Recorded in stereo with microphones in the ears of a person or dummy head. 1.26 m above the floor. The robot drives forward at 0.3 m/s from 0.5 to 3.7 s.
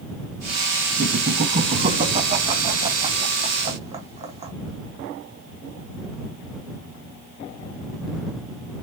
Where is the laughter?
50° right (ahead or behind), 1.6 m; by 4.5 s 30° right (ahead or behind), 2 m.